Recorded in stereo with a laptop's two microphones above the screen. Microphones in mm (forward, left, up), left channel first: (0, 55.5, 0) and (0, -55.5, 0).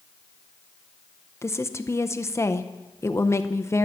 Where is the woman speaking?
25° left (ahead or behind), 0.6 m.